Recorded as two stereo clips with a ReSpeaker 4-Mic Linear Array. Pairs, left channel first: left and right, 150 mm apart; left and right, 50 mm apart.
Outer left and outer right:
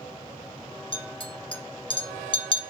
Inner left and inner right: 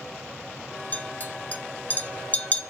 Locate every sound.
0.9 s a clink: 35° left (ahead or behind), 0.5 m